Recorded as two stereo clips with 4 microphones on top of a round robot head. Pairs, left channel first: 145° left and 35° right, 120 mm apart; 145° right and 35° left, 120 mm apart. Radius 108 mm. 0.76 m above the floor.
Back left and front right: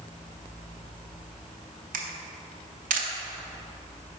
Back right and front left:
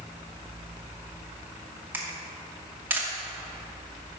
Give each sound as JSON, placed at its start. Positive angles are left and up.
{"t": 1.9, "sound": "a camera shutter", "azimuth_deg": -40, "distance_m": 0.6}